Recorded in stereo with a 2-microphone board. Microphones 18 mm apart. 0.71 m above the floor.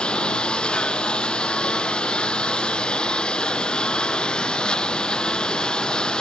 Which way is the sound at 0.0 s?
65° left (ahead or behind).